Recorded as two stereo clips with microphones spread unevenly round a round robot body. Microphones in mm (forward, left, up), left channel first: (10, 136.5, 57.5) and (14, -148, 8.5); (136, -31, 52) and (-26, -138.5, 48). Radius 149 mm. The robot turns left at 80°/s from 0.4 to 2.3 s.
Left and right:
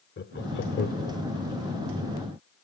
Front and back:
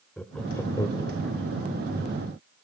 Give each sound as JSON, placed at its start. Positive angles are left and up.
{"t": 0.2, "sound": "laughter", "azimuth_deg": 115, "distance_m": 1.2}